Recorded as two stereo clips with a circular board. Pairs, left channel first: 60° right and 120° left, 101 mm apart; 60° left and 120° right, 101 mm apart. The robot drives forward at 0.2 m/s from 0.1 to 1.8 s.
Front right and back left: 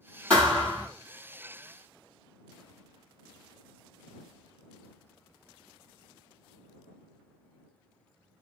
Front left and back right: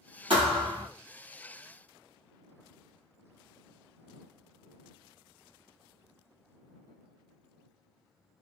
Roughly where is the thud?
Behind right.